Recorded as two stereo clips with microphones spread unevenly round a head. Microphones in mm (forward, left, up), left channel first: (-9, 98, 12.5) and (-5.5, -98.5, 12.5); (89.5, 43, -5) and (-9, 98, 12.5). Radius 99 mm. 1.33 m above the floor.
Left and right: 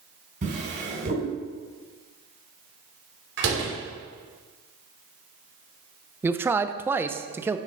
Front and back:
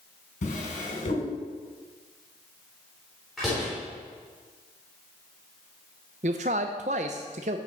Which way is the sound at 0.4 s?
35° right.